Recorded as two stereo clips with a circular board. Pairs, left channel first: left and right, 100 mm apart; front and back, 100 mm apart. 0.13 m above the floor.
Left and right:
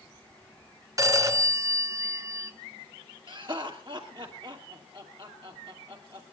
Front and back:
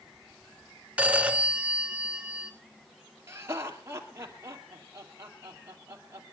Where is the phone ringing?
115° right, 1.1 m.